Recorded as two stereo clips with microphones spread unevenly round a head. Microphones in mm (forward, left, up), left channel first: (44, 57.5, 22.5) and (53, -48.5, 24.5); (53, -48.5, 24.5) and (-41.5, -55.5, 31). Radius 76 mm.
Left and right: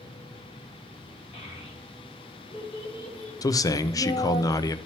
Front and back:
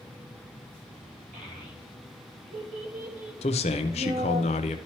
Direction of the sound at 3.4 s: 35° left.